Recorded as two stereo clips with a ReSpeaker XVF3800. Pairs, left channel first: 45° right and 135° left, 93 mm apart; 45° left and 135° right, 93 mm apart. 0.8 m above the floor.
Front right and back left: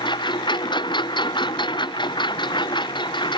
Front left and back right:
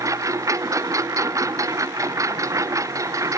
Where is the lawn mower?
80° right.